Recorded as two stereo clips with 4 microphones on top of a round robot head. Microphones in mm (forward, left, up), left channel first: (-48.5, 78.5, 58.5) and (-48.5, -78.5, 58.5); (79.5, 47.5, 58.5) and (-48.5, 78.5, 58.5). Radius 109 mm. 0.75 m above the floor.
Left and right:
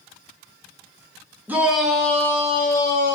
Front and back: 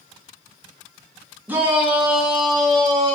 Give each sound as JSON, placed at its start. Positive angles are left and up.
{"t": 1.5, "sound": "a shout", "azimuth_deg": -145, "distance_m": 1.0}